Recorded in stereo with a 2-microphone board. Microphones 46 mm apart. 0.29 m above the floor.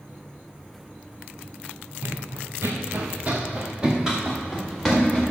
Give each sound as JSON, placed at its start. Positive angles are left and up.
{"t": 2.0, "sound": "running footsteps", "side_deg": -80, "distance_m": 1.5}